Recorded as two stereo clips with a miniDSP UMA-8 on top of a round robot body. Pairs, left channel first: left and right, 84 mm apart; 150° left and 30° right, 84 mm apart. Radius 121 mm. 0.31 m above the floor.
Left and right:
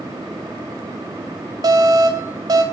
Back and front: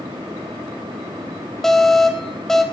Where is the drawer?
No drawer in this recording.